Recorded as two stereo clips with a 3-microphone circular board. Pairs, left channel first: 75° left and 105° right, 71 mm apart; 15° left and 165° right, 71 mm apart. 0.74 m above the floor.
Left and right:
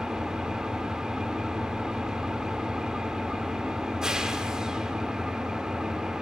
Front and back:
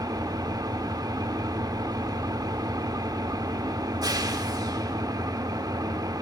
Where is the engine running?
175° left, 1.5 m.